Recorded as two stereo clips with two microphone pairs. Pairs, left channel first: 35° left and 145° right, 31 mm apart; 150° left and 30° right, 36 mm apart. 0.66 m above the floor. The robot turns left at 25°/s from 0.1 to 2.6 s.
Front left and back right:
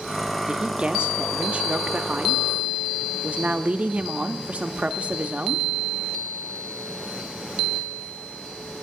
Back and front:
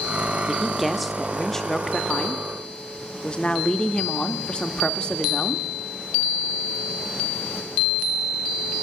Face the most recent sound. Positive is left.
turn(degrees=-160)